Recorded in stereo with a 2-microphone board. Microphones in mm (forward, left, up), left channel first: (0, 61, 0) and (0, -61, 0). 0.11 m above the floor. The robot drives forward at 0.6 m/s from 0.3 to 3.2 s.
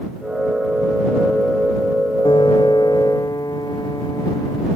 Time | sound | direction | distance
2.2 | a piano | 45° left (ahead or behind) | ?